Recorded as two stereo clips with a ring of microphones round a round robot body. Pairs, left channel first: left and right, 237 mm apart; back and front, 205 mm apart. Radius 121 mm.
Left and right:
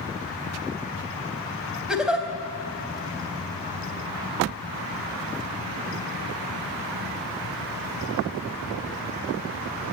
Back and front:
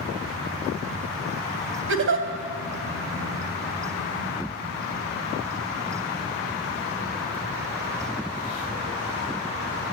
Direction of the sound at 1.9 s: 5° right.